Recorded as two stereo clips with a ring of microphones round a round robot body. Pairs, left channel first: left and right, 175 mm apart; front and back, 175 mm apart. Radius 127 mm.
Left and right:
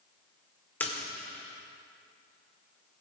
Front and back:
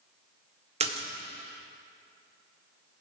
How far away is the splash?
About 1.6 m.